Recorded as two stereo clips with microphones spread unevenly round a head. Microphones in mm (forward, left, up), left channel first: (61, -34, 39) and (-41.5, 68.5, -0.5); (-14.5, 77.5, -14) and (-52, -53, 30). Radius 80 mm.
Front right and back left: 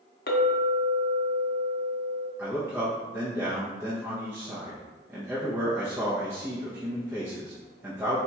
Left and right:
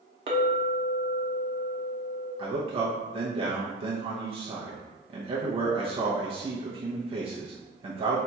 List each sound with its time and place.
0.3 s a clink: 60° right, 0.7 m
2.4 s a man speaking: 165° right, 0.7 m